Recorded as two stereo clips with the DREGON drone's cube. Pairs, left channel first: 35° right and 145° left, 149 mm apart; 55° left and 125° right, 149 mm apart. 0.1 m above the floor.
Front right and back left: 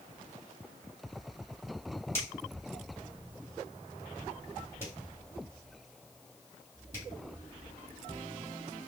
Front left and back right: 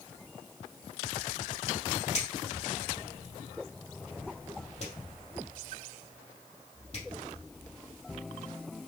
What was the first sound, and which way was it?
A finger snap, 30° left.